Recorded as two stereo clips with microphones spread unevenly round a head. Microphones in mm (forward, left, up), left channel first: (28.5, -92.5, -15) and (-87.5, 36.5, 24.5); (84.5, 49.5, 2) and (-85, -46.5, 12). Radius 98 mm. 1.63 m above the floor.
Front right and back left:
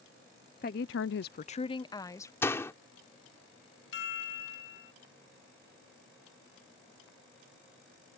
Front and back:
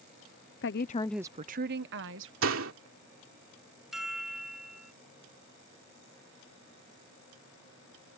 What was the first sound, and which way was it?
A woman speaking, straight ahead.